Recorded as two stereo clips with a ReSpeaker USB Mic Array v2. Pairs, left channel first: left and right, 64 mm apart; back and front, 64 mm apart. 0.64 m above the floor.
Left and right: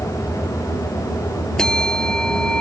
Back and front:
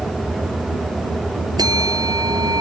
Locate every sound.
1.6 s a bell: 10° left